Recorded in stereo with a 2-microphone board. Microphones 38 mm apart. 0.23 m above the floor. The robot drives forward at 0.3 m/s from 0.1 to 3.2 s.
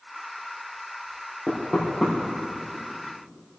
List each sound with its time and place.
1.5 s knocking: 20° right (ahead or behind), 5 m